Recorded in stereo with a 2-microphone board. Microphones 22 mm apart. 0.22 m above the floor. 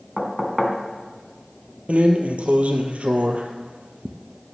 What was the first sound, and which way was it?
Knocking, centre (ahead or behind).